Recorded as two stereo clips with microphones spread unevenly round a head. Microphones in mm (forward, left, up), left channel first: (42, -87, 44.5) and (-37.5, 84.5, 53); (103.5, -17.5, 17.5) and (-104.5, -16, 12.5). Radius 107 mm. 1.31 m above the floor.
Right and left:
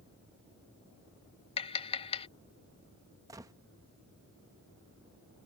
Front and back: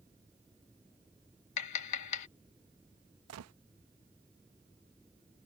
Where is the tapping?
Straight ahead.